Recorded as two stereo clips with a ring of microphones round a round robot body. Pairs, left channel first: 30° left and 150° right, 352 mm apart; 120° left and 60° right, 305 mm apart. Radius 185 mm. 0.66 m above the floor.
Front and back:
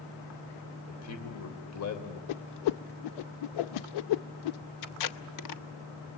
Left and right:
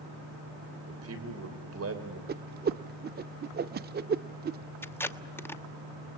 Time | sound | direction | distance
0.9 | a man speaking | 15° right | 3 m
2.3 | a whoosh | straight ahead | 0.5 m
4.8 | tape being pulled | 40° left | 1.2 m